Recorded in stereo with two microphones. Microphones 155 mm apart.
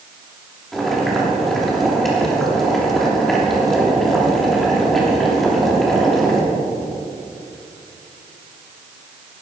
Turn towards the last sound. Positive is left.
turn(degrees=0)  # may be behind; listen again after turning